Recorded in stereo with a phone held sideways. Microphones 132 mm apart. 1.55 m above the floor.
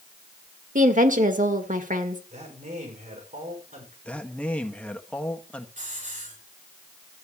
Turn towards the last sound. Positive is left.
turn(degrees=-70)  # may be behind; listen again after turning